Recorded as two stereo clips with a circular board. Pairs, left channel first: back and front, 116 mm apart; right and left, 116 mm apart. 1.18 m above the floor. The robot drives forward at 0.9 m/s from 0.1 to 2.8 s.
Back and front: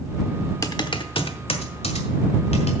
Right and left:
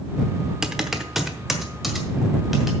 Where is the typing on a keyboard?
170° left, 0.8 m; by 2.7 s straight behind, 2.5 m.